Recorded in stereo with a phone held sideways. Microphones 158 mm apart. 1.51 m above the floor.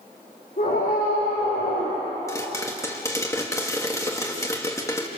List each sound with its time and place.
0.6 s a scream: 60° left (ahead or behind), 6.5 m; by 2.0 s 80° left, 6 m
2.3 s a pop: 20° left (ahead or behind), 2 m